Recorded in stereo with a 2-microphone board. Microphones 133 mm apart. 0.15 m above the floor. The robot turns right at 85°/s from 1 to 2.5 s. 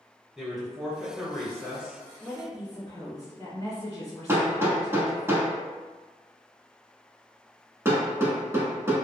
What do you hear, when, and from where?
0.4 s a woman speaking: 5° right (ahead or behind), 1.0 m; by 2.0 s 20° left (ahead or behind), 1.0 m
2.2 s a woman speaking: 15° left (ahead or behind), 1.6 m; by 5.3 s 30° left (ahead or behind), 1.6 m
4.3 s hammering: 20° right (ahead or behind), 0.9 m